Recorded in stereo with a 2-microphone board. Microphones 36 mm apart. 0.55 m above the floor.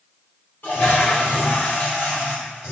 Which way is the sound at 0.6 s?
60° left (ahead or behind).